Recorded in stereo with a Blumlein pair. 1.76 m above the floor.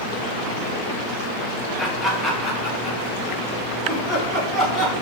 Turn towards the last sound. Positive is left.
turn(degrees=-10)